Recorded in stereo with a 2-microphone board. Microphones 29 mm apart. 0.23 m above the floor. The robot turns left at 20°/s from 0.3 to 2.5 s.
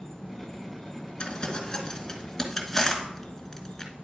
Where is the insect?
145° left, 1.5 m; by 4.0 s 100° left, 1.5 m.